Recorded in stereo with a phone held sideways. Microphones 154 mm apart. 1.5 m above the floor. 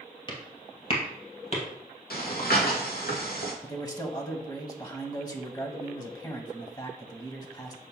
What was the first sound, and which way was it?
Footsteps, 30° left (ahead or behind).